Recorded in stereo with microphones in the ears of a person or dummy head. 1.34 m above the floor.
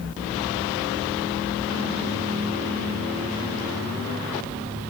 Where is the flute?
No flute in this recording.